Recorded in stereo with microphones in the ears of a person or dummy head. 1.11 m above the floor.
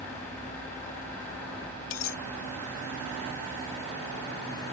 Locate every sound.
1.9 s a dropped coin: 75° left (ahead or behind)